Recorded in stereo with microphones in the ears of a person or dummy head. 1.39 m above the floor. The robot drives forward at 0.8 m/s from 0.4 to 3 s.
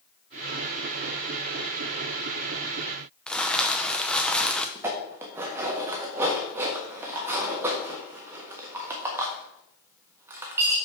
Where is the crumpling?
Centre (ahead or behind), 0.5 m.